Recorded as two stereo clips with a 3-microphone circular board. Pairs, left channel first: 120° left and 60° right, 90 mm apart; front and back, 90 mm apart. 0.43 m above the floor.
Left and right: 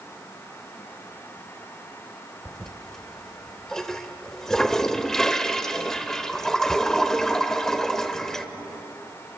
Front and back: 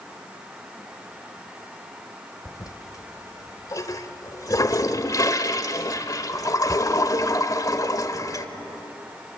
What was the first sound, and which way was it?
A toilet flushing, 35° left.